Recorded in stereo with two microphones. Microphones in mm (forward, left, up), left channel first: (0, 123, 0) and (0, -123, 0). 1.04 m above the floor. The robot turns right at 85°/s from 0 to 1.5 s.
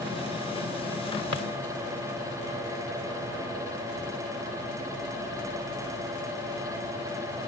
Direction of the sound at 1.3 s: 85° left.